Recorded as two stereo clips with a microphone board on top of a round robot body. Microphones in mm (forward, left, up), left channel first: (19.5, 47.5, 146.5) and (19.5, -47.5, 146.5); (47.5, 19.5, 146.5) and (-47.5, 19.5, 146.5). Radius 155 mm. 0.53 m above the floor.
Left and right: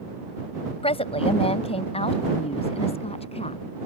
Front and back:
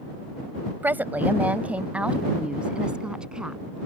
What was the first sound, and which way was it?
A woman speaking, 110° left.